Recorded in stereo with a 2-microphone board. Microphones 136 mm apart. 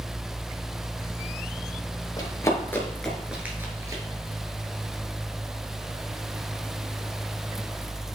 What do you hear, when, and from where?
2.2 s running footsteps: 30° left (ahead or behind), 2.0 m; by 4.0 s 25° right (ahead or behind), 1.9 m